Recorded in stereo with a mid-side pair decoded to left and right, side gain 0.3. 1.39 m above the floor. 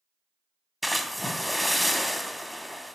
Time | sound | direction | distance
0.8 | a splash | 5° left | 0.8 m